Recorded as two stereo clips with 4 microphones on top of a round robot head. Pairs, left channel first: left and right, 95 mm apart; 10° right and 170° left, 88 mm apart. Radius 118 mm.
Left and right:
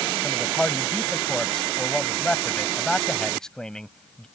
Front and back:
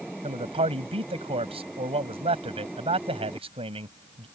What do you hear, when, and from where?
0.2 s a man speaking: 175° left